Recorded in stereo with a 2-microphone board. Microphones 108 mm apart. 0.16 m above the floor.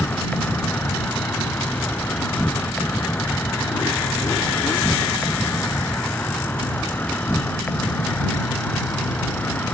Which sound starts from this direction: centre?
An insect, at 0.0 s.